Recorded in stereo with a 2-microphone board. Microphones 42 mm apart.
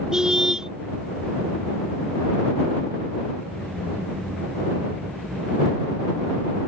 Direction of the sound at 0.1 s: 15° right (ahead or behind).